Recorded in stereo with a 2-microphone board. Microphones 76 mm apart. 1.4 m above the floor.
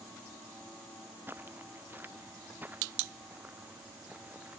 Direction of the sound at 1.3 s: 30° right (ahead or behind).